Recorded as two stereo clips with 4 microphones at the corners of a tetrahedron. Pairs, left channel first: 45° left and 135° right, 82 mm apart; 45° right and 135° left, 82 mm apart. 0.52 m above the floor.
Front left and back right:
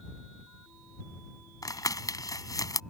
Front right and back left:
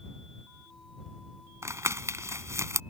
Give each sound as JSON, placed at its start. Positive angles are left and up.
{"t": 1.6, "sound": "crumpling", "azimuth_deg": 85}